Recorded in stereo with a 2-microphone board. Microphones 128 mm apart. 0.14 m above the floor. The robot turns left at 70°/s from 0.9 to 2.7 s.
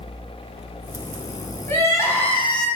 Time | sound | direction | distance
1.7 | crying | 20° left (ahead or behind) | 1.0 m